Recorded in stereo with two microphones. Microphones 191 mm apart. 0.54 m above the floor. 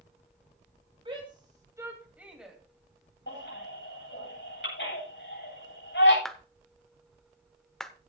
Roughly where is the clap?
Centre.